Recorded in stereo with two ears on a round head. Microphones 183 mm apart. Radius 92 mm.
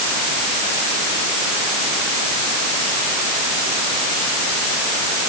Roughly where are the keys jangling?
No keys jangling in this recording.